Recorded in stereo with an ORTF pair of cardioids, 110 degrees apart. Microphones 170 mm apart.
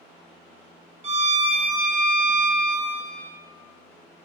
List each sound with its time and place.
1.0 s a violin: 35° right, 0.6 m